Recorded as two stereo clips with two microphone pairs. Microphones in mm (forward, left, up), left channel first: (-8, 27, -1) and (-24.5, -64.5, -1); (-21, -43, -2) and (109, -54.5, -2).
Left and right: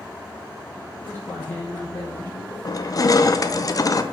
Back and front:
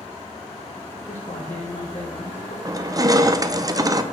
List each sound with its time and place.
0.9 s a man speaking: 145° left, 1.2 m
2.6 s crushing: 40° left, 0.5 m